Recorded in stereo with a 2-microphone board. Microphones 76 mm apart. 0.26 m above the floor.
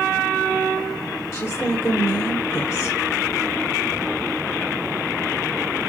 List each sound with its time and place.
1.3 s a woman speaking: 40° left (ahead or behind), 3 m